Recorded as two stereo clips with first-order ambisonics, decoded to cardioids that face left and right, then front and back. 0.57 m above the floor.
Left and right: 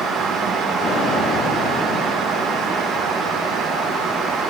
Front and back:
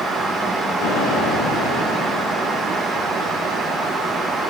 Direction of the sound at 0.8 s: 25° left.